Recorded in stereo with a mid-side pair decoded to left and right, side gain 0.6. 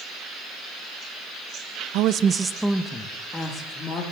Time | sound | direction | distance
1.9 | a woman speaking | 70° right | 0.8 m